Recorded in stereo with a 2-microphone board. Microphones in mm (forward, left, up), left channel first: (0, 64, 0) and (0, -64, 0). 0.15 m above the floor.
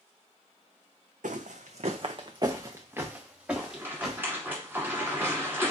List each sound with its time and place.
1.2 s footsteps: 85° right, 0.6 m; by 4.2 s centre (ahead or behind), 1.5 m
3.6 s a rattle: 15° right (ahead or behind), 1.9 m